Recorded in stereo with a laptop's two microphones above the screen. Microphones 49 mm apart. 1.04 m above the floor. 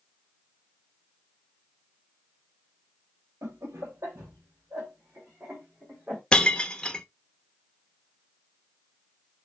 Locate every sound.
3.4 s laughter: 80° right, 1.0 m; by 6.2 s 35° right (ahead or behind), 2.5 m
6.3 s breaking glass: 15° left (ahead or behind), 0.6 m